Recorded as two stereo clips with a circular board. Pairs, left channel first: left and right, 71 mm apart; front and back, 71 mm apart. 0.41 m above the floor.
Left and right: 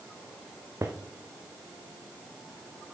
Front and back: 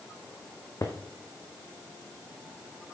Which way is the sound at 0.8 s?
40° right.